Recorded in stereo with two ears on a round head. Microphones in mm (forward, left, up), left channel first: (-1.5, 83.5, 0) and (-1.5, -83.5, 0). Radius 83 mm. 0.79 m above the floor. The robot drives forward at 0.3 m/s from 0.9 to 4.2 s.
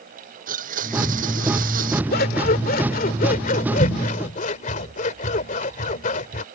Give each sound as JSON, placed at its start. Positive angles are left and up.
{"t": 0.5, "sound": "a blender", "side_deg": -45}
{"t": 2.1, "sound": "scissors", "side_deg": 55}